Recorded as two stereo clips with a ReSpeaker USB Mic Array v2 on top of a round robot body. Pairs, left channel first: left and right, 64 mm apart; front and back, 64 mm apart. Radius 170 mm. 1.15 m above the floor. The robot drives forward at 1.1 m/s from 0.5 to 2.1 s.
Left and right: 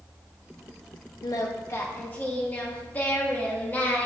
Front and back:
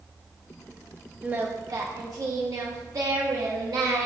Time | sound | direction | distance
1.2 | singing | 110° left | 0.6 m